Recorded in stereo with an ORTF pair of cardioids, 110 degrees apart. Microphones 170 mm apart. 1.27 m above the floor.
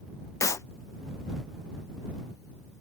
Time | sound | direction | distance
0.4 | a clap | 20° left | ?